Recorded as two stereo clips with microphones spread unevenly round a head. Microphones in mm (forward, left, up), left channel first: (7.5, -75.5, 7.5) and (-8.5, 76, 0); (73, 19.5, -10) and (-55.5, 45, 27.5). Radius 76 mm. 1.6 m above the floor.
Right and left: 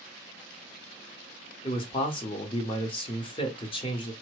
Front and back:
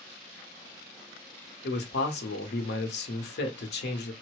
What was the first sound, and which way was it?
A man speaking, 30° right.